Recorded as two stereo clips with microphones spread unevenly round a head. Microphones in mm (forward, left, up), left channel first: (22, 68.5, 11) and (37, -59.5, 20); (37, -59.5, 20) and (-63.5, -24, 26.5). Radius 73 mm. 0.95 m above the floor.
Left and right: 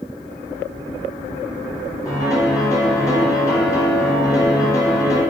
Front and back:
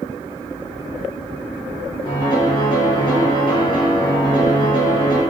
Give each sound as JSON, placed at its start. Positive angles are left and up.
{"t": 2.0, "sound": "a piano", "azimuth_deg": 35, "distance_m": 1.4}